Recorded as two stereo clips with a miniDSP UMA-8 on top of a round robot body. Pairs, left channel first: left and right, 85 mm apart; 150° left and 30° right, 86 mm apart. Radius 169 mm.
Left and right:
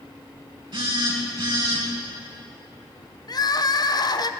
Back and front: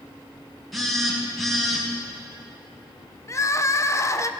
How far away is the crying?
About 0.8 m.